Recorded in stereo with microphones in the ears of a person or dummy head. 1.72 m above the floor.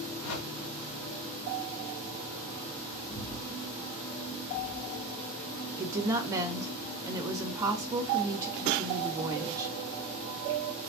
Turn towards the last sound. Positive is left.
turn(degrees=-10)  # may be behind; listen again after turning